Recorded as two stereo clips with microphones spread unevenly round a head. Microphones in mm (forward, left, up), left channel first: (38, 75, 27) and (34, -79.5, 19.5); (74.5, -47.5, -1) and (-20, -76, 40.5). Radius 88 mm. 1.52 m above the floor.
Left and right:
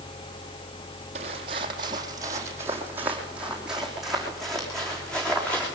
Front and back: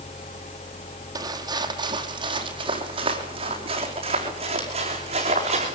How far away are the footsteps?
About 2.5 m.